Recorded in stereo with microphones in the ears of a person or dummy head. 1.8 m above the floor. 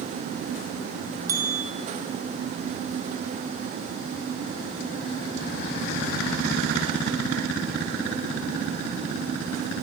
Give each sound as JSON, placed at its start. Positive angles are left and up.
{"t": 1.3, "sound": "a bell", "side_deg": -25, "distance_m": 0.6}